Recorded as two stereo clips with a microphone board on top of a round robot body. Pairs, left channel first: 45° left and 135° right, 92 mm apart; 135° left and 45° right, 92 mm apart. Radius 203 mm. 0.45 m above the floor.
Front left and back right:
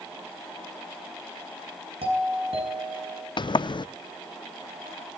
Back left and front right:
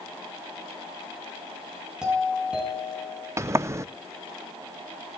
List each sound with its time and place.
2.0 s a doorbell: 125° right, 8 m
3.4 s a sliding door: 15° left, 0.6 m